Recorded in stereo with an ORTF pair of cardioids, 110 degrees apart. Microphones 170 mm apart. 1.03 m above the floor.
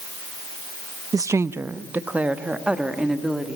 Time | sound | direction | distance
1.1 | a woman speaking | 20° right | 0.5 m